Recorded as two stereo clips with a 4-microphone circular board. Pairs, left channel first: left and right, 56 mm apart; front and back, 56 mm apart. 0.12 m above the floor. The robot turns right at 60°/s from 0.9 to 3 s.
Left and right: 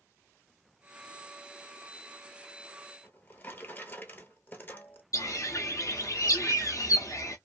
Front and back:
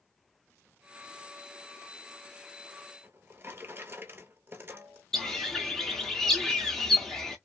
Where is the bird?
80° left, 0.7 m.